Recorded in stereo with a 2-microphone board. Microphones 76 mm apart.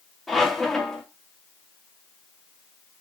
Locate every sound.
0.3 s a squeak: 5° left (ahead or behind), 0.7 m